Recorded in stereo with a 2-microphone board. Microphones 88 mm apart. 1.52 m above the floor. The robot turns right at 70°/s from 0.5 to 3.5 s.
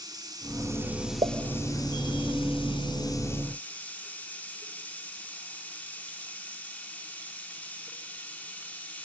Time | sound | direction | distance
0.0 | running water | 45° right | 3 m
1.2 | a pop | 75° right (ahead or behind) | 0.8 m